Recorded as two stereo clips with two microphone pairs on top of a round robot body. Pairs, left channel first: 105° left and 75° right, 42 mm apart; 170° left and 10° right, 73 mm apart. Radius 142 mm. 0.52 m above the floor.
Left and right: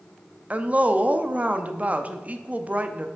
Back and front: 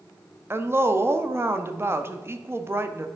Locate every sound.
0.5 s a woman speaking: 30° right, 0.9 m